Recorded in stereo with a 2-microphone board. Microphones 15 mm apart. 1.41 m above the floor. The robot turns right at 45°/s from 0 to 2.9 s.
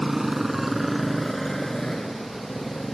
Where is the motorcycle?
35° right (ahead or behind); by 2.9 s 70° left (ahead or behind).